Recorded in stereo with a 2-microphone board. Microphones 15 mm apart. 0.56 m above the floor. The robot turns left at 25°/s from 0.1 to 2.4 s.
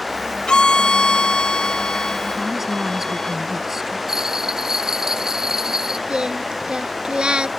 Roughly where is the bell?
Right.